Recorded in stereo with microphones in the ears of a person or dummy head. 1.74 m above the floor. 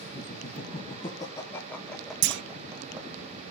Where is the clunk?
65° right (ahead or behind), 0.8 m.